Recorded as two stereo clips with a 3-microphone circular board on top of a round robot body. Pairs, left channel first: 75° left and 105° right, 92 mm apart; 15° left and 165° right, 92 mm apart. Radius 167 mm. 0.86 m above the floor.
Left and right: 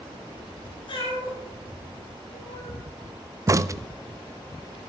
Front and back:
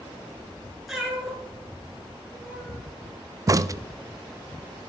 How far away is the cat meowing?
About 3.5 m.